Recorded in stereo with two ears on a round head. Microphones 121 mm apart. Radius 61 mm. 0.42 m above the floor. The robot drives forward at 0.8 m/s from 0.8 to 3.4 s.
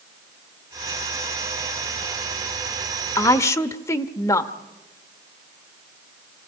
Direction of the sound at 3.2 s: 25° left (ahead or behind).